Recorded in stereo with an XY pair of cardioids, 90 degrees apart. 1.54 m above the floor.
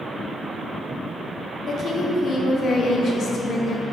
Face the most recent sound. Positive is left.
turn(degrees=55)